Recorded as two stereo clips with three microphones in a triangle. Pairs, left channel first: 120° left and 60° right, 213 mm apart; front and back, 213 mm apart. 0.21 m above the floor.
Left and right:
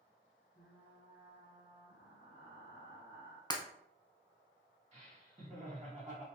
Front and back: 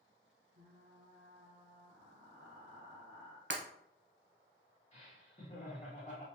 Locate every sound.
0.6 s frying: 145° left, 2.0 m
3.5 s breaking glass: 170° right, 0.7 m
4.9 s laughter: 30° right, 1.9 m